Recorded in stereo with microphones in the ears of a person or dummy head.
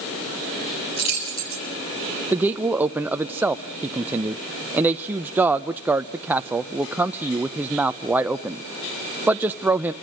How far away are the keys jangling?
About 8 m.